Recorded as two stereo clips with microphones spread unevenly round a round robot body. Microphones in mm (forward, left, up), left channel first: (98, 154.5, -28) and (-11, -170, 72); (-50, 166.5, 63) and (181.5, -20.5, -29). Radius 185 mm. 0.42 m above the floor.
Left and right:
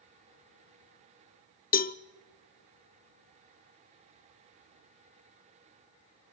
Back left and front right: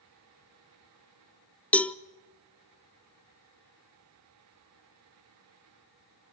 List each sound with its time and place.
1.7 s a cowbell: 40° left, 0.5 m